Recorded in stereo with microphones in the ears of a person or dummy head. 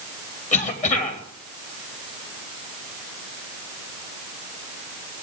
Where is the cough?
40° left (ahead or behind), 3.5 m.